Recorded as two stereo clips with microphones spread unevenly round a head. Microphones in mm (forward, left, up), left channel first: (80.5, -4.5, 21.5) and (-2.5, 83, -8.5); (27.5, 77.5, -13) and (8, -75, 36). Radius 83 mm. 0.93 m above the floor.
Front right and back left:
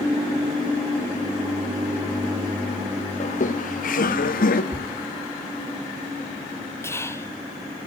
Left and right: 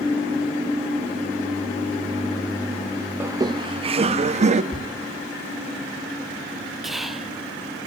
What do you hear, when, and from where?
3.2 s laughter: 15° right, 0.6 m; by 4.6 s 45° right, 1.3 m
4.7 s a thud: 40° left, 1.1 m
6.8 s whispering: 30° left, 0.9 m